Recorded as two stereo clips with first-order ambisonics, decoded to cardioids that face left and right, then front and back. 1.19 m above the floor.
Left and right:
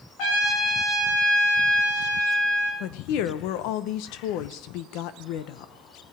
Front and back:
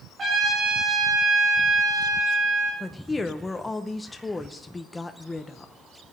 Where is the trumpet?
110° left, 3 m.